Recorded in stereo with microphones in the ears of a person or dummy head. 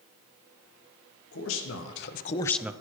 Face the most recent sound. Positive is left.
turn(degrees=-15)  # may be behind; listen again after turning